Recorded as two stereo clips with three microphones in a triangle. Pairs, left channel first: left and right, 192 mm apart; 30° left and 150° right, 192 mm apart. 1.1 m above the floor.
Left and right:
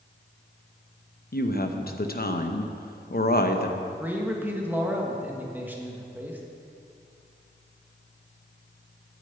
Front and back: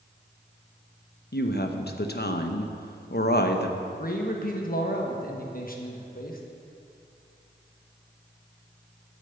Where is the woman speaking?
55° left, 0.8 m.